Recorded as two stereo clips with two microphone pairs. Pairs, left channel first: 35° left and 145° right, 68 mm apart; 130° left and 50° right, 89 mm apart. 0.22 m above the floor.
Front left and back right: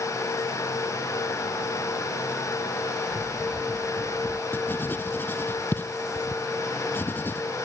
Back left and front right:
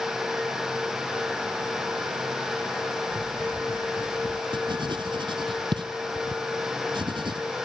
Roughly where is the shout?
No shout in this recording.